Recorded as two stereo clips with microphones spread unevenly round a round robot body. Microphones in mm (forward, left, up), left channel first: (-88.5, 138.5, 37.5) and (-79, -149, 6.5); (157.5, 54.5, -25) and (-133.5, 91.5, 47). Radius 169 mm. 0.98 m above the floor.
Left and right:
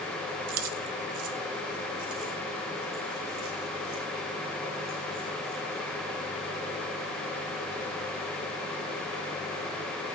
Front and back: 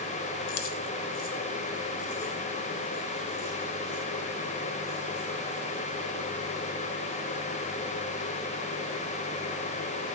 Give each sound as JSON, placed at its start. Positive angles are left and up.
{"t": 0.5, "sound": "keys jangling", "azimuth_deg": -55, "distance_m": 0.6}